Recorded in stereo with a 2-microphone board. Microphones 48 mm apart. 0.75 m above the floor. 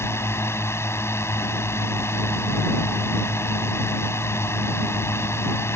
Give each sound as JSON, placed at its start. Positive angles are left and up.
{"t": 0.0, "sound": "a drone", "side_deg": 65}